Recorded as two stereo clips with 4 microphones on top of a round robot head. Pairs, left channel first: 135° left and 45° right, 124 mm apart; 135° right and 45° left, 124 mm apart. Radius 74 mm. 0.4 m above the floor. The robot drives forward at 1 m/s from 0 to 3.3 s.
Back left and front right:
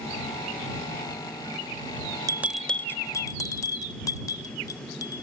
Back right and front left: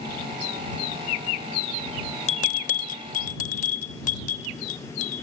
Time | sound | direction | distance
2.3 | a bell | 105° right | 0.5 m